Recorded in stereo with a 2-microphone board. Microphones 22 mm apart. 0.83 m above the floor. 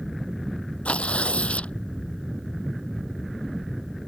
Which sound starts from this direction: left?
Tearing paper, at 0.8 s.